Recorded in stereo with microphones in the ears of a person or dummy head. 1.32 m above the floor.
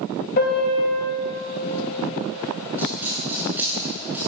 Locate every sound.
0.4 s a piano: 55° left (ahead or behind), 4.5 m
2.8 s a dropped coin: 10° right (ahead or behind), 8 m